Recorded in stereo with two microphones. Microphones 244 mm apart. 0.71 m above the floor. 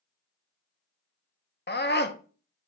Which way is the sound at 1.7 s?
45° left (ahead or behind).